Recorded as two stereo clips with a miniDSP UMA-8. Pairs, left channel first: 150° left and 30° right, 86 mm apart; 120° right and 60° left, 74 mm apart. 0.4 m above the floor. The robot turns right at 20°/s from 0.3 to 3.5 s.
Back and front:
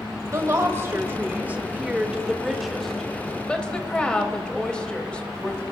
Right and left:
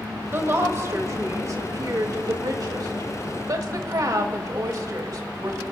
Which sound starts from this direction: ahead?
A woman speaking, at 0.3 s.